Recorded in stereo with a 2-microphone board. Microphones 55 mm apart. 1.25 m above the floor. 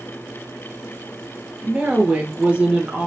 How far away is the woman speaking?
About 1.7 m.